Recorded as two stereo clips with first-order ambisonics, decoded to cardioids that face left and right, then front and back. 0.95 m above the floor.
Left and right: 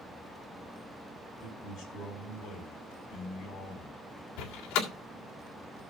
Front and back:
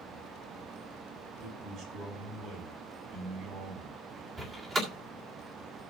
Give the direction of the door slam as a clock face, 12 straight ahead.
8 o'clock.